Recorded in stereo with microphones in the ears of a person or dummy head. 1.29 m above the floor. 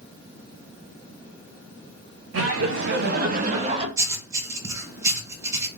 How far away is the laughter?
About 1.6 m.